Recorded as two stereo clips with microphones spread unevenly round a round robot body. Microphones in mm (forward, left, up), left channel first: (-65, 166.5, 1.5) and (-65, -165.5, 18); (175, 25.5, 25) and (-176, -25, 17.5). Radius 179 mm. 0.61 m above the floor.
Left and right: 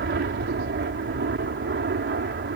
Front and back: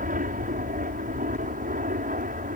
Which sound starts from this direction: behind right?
An aircraft, at 0.0 s.